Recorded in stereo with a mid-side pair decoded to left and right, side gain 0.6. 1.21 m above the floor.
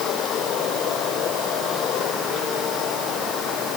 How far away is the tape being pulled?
I don't hear tape being pulled.